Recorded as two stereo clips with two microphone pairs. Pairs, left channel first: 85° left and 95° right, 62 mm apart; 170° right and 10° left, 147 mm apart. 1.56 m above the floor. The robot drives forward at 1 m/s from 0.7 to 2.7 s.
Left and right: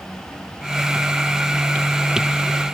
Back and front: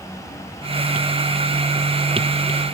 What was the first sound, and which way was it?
Only background noise.